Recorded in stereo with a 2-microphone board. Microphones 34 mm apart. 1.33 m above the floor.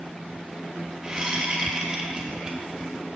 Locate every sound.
1.0 s a whoosh: 25° right (ahead or behind), 1.3 m